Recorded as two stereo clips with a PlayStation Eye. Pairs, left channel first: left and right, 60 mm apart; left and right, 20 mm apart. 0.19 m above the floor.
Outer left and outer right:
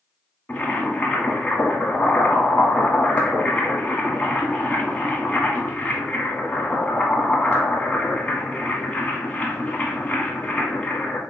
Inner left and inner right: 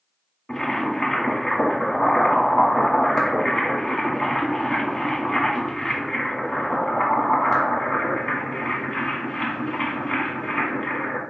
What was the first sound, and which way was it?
Boiling, 25° left (ahead or behind).